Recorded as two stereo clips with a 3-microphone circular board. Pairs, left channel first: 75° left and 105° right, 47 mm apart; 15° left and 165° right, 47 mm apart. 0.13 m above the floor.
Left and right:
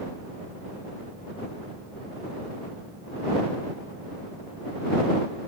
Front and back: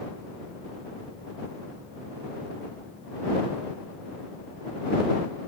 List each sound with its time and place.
Only background noise.